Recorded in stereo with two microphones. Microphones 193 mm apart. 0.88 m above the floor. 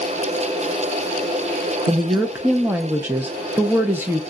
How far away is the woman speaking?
About 0.5 m.